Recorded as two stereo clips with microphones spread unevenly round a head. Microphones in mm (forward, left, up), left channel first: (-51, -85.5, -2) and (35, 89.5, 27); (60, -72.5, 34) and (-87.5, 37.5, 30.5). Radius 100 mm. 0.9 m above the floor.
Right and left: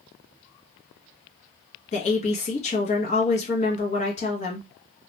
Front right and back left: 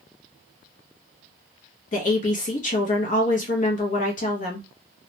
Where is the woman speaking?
75° right, 0.8 m.